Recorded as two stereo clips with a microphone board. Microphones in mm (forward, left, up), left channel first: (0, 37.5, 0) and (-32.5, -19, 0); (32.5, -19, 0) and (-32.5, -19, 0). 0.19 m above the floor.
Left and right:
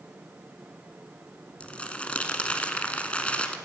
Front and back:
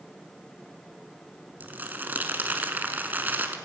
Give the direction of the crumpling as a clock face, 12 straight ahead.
8 o'clock.